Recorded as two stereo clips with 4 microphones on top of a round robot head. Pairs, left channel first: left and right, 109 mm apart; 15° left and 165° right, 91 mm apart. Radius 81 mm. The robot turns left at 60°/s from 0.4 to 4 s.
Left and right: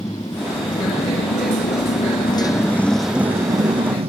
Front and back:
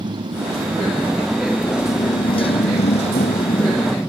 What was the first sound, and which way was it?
A motorcycle, 155° left.